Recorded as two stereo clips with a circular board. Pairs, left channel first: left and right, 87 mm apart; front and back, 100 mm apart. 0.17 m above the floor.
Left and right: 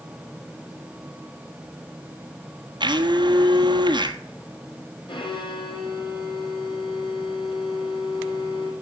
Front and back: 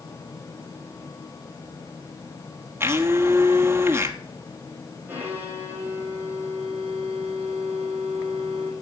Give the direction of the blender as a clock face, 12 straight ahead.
4 o'clock.